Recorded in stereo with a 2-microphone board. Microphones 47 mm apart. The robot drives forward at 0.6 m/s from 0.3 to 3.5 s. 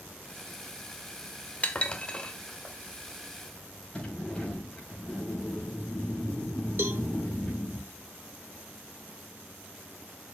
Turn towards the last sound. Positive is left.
turn(degrees=-55)  # may be behind; listen again after turning